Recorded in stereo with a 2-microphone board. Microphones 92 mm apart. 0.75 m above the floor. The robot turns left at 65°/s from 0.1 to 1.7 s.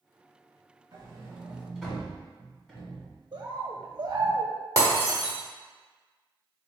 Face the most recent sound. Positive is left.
turn(degrees=-40)  # may be behind; listen again after turning